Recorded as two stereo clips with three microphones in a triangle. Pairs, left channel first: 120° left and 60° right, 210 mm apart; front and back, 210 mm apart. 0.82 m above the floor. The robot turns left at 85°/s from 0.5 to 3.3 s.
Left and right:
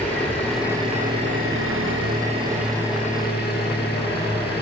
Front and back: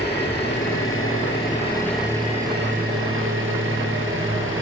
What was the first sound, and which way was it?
An engine running, 35° left.